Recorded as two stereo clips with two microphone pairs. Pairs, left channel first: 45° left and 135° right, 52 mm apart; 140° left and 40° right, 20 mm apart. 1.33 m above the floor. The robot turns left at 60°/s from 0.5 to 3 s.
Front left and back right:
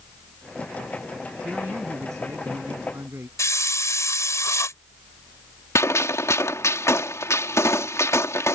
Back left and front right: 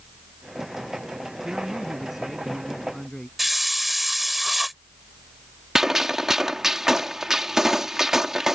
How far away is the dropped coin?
No dropped coin in this recording.